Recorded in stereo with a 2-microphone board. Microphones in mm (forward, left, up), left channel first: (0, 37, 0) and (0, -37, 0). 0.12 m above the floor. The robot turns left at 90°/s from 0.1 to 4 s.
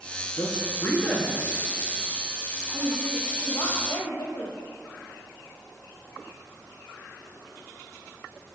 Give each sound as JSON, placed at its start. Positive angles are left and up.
{"t": 0.3, "sound": "a man speaking", "azimuth_deg": 85, "distance_m": 2.5}
{"t": 2.7, "sound": "a woman speaking", "azimuth_deg": -145, "distance_m": 3.5}